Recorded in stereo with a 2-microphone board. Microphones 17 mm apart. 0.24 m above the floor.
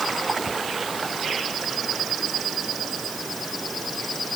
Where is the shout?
No shout in this recording.